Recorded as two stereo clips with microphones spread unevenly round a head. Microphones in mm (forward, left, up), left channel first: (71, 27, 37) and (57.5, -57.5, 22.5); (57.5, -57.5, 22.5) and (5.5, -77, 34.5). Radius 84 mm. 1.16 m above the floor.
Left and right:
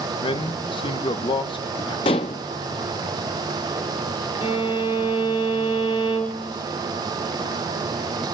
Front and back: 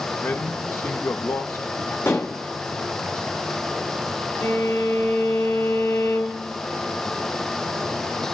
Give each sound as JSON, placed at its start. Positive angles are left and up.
{"t": 0.2, "sound": "a man speaking", "azimuth_deg": 65, "distance_m": 1.7}
{"t": 2.0, "sound": "dishes clattering", "azimuth_deg": 100, "distance_m": 0.9}
{"t": 4.4, "sound": "a violin", "azimuth_deg": 60, "distance_m": 4.0}